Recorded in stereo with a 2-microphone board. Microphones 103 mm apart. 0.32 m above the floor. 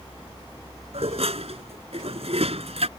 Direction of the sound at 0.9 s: 80° right.